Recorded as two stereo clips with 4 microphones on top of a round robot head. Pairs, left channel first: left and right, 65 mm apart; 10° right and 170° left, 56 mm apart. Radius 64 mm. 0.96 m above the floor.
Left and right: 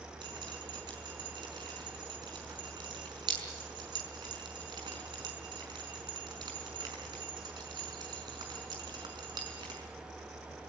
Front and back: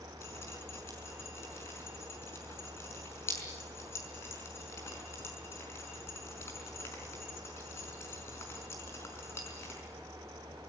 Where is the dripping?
65° right, 5 m.